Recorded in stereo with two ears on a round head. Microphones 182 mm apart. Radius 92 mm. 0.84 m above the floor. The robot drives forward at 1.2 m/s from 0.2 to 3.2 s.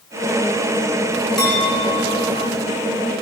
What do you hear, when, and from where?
1.4 s a clink: 5° left (ahead or behind), 5.5 m